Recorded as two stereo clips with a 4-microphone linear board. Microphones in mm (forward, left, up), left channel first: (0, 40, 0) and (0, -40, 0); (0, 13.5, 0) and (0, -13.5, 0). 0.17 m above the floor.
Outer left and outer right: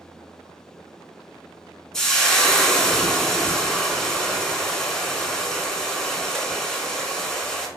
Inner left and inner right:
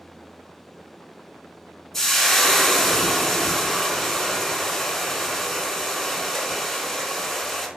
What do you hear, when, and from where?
1.9 s frying: 10° left (ahead or behind), 0.7 m